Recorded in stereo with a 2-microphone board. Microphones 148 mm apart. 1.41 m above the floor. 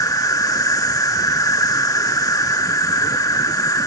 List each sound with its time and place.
0.0 s an insect: 25° left (ahead or behind)